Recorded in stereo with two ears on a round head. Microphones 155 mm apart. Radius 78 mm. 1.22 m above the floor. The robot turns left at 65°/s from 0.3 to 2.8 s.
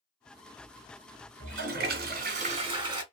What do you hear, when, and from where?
1.4 s a toilet flushing: 55° right, 1.0 m; by 3.0 s 150° right, 1.0 m